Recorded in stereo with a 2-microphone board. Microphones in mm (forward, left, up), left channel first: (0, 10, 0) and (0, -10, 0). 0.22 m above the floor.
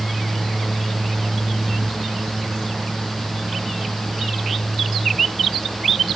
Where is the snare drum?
No snare drum in this recording.